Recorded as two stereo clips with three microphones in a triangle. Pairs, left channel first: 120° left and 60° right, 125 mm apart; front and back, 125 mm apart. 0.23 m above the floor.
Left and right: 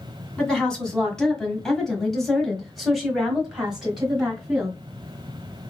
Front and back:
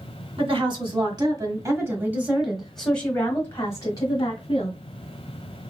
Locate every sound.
0.4 s a woman speaking: 160° right, 1.9 m; by 4.7 s 20° left, 1.9 m